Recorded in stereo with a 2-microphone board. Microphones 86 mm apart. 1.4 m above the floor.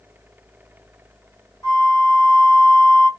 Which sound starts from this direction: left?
A flute, at 1.6 s.